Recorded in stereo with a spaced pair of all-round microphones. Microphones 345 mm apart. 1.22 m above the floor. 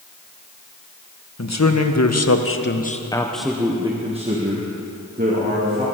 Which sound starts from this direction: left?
A man speaking, at 1.4 s.